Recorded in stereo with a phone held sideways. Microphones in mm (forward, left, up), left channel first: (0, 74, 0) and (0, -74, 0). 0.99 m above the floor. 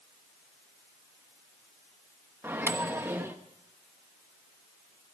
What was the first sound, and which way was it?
A microwave, 15° right (ahead or behind).